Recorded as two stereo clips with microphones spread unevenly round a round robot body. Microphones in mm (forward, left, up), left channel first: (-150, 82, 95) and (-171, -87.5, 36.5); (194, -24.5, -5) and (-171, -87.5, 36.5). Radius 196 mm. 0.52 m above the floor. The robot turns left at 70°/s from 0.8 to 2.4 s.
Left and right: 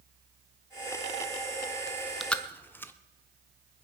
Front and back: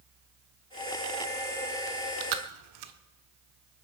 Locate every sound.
1.9 s chewing: 150° right, 1.2 m; by 2.9 s 175° left, 1.2 m